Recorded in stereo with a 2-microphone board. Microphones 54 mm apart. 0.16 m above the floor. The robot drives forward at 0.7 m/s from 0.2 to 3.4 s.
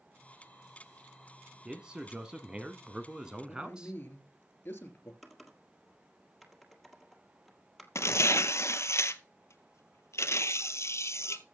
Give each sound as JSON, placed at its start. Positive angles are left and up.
{"t": 1.6, "sound": "a man speaking", "side_deg": -15, "distance_m": 1.2}
{"t": 3.5, "sound": "a man speaking", "side_deg": 40, "distance_m": 3.0}
{"t": 5.2, "sound": "typing on a keyboard", "side_deg": -5, "distance_m": 1.6}
{"t": 8.0, "sound": "tearing paper", "side_deg": 60, "distance_m": 0.7}